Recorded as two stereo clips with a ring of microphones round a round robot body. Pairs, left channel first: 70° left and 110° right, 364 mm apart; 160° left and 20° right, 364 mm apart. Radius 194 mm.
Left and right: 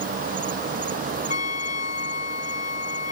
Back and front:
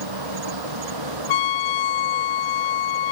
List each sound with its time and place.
0.0 s an insect: 45° right
1.3 s a trumpet: 135° left